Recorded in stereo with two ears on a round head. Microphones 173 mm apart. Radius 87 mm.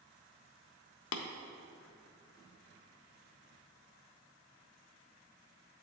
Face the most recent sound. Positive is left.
turn(degrees=75)  # may be behind; listen again after turning